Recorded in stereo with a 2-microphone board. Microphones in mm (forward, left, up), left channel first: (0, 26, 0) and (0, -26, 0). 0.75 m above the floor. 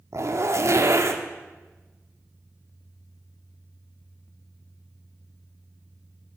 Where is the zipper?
60° right (ahead or behind), 1.2 m.